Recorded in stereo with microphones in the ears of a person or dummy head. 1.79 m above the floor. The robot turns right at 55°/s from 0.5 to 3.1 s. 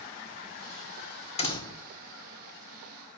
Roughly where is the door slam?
Left.